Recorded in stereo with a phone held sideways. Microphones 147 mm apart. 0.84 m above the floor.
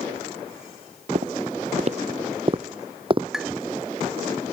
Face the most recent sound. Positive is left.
turn(degrees=-5)  # may be behind; listen again after turning